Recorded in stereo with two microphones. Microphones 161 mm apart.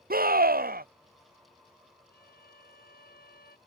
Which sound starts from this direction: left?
A violin, at 2.1 s.